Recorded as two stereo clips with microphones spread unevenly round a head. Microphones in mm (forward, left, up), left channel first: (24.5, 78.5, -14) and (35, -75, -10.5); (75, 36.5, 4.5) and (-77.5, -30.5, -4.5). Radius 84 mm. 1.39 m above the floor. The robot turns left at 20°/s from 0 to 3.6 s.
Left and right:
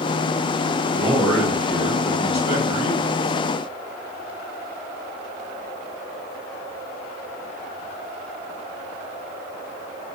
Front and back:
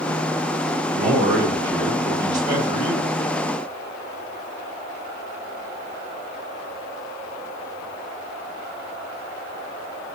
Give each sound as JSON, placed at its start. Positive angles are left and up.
{"t": 0.9, "sound": "a man speaking", "azimuth_deg": 180, "distance_m": 1.9}